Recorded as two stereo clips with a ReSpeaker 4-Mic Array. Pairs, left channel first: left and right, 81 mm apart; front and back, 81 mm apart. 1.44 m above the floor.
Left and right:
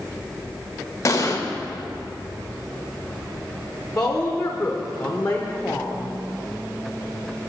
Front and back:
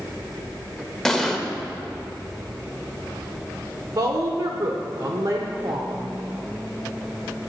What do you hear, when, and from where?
1.1 s an explosion: 75° left, 0.8 m
4.0 s a woman speaking: 165° left, 0.7 m